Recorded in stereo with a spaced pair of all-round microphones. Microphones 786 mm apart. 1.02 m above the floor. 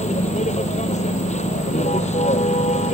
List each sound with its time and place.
0.0 s a vehicle: 10° left (ahead or behind)